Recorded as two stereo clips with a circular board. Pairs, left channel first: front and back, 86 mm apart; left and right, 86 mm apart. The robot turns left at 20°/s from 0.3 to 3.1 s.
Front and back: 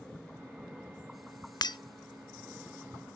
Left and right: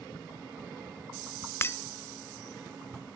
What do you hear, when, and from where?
1.6 s breaking glass: 30° left, 0.5 m; by 1.8 s 25° left, 0.5 m